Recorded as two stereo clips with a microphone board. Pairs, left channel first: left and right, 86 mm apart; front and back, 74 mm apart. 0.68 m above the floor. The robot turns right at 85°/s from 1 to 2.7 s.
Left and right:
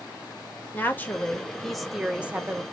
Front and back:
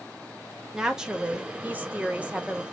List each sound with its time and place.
0.7 s a woman speaking: 115° left, 0.7 m; by 2.6 s 110° right, 0.7 m